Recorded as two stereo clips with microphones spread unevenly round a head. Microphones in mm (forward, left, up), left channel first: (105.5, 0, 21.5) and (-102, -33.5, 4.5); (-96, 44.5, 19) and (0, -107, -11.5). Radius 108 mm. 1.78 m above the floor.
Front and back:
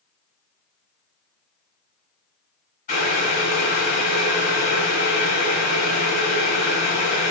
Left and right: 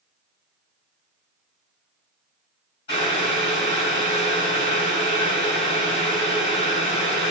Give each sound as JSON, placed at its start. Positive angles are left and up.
{"t": 2.9, "sound": "boiling", "azimuth_deg": 60, "distance_m": 4.5}